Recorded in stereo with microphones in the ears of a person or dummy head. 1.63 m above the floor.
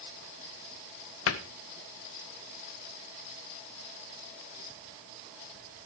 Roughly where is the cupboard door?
Left.